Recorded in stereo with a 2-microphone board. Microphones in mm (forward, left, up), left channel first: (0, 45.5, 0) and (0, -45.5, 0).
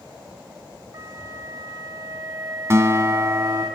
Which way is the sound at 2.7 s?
35° right (ahead or behind).